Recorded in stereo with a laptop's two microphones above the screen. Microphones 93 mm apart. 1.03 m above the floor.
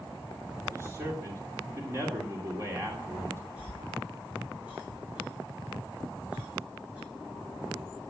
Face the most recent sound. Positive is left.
turn(degrees=-15)  # may be behind; listen again after turning